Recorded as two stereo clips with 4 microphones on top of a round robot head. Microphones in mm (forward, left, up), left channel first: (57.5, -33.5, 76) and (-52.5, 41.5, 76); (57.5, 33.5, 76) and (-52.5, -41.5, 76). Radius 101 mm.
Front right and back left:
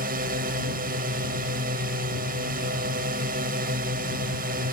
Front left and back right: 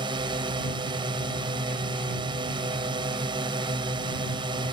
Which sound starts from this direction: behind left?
A drone, at 0.0 s.